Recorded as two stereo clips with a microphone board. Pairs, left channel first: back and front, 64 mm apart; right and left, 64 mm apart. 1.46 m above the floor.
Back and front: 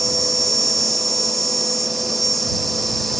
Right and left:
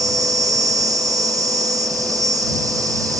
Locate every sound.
0.0 s an insect: 90° left